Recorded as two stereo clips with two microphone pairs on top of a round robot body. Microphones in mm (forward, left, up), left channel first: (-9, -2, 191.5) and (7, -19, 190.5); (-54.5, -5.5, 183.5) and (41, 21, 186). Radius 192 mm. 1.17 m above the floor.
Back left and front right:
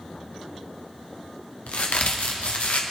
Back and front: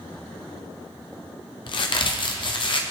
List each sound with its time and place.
1.7 s a crack: 155° left, 1.1 m